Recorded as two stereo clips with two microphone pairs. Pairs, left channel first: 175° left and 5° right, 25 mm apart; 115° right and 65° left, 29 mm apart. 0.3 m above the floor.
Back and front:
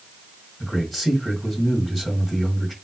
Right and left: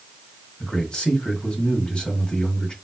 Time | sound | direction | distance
0.6 | a man speaking | 95° right | 1.7 m